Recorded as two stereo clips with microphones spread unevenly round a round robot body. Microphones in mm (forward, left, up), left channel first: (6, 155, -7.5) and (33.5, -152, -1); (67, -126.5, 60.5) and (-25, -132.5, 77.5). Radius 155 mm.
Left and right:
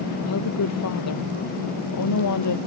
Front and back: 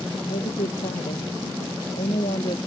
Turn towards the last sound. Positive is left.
turn(degrees=65)